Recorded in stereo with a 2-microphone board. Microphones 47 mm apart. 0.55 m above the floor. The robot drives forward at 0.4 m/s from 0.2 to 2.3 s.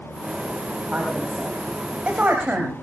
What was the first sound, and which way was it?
A woman speaking, 30° right (ahead or behind).